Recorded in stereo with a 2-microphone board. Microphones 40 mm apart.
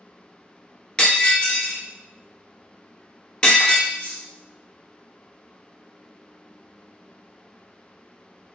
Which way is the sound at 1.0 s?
20° left (ahead or behind).